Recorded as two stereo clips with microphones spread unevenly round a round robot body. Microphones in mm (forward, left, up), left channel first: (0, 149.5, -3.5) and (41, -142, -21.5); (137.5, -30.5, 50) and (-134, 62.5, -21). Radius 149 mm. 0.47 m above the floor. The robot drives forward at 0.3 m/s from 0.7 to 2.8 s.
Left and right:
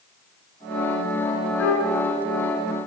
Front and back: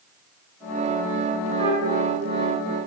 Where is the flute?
140° left, 1.8 m; by 2.0 s 145° left, 1.9 m.